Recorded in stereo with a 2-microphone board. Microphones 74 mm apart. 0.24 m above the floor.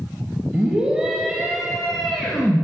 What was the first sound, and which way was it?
A scream, 15° right (ahead or behind).